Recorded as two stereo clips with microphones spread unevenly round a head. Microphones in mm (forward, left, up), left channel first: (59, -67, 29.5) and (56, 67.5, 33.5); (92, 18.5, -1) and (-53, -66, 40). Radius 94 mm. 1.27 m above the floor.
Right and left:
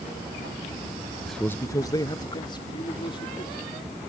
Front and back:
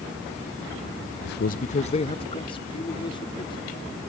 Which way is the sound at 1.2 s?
5° left.